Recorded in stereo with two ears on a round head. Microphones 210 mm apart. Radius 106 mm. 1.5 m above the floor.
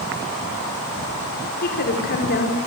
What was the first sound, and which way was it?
A woman speaking, 40° left (ahead or behind).